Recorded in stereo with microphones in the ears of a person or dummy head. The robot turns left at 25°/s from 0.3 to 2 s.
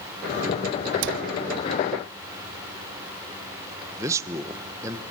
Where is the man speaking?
15° right (ahead or behind), 1.2 m.